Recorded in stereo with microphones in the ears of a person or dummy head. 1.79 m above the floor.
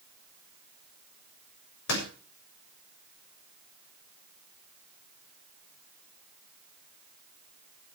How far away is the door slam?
About 7 m.